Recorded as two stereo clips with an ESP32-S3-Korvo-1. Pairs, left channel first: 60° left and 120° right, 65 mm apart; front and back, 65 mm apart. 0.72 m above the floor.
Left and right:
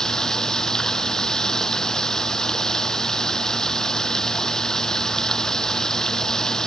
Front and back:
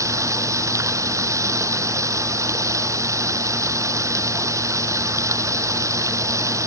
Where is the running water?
140° left.